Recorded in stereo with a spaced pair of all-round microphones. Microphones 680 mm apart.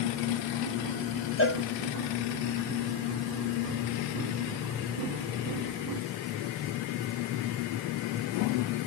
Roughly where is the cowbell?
Centre.